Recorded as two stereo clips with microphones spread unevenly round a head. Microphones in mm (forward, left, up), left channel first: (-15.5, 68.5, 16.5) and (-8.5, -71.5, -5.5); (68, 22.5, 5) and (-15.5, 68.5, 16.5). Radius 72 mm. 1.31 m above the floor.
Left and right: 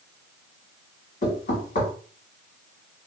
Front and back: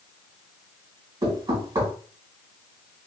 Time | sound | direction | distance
1.2 | knocking | 115° left | 2.0 m